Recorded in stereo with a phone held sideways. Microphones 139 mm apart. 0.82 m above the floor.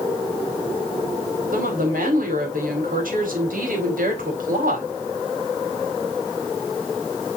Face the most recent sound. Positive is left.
turn(degrees=-85)